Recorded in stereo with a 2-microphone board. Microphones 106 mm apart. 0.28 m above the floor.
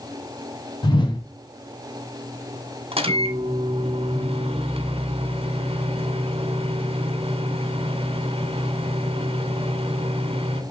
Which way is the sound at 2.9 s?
65° right (ahead or behind).